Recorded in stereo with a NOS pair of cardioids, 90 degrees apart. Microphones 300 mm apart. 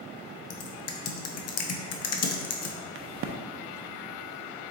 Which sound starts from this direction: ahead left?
Typing on a keyboard, at 0.5 s.